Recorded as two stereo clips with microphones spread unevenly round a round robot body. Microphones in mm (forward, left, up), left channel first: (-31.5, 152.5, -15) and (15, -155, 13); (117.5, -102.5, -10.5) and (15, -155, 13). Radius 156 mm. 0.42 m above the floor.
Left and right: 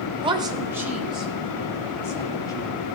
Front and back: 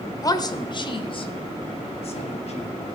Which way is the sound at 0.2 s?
10° right.